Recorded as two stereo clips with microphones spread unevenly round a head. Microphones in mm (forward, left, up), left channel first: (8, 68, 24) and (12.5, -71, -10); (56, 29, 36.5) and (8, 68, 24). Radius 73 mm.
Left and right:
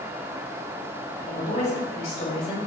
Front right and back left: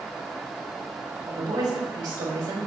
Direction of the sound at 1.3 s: 140° left.